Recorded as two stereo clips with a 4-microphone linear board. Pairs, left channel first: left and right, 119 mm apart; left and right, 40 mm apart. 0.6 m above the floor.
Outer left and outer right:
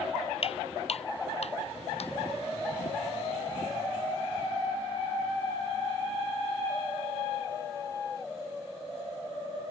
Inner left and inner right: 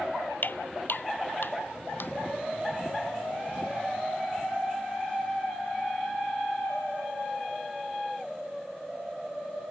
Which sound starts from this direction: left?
Footsteps, at 0.4 s.